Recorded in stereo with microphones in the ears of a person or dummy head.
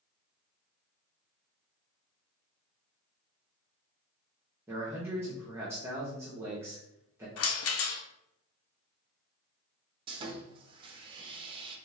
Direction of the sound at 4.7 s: 15° right (ahead or behind).